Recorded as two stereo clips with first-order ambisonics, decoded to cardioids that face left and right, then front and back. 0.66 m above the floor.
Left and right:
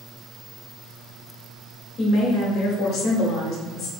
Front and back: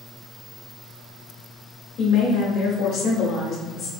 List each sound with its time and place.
2.0 s a woman speaking: 35° left, 1.4 m